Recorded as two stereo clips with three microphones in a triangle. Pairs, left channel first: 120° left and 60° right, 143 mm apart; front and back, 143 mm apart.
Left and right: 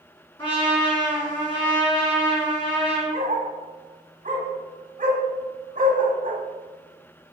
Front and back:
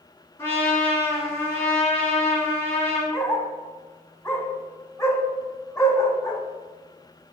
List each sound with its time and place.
0.4 s a trumpet: 70° left, 1.9 m
3.1 s a dog barking: 70° right, 0.6 m